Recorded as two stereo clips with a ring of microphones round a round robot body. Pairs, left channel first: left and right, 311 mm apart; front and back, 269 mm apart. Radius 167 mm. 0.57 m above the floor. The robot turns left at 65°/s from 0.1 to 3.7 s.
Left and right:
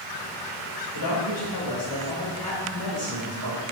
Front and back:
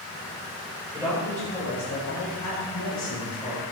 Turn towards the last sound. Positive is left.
turn(degrees=-70)